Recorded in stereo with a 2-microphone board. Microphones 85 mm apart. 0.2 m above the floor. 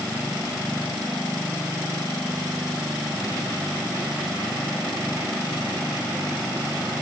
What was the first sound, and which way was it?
Only background noise.